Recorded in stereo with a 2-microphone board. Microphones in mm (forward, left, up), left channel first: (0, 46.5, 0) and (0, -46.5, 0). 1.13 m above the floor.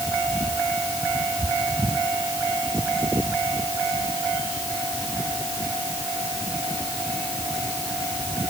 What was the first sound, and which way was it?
Only background noise.